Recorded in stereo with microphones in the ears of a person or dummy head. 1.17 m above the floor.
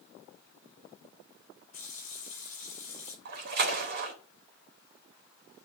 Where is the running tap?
35° left (ahead or behind), 6 m.